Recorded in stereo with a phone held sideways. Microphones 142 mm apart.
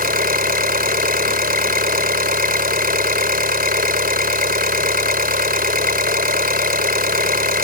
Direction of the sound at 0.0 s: 80° right.